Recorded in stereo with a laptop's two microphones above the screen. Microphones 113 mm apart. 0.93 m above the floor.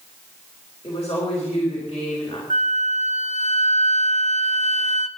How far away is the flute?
About 0.6 m.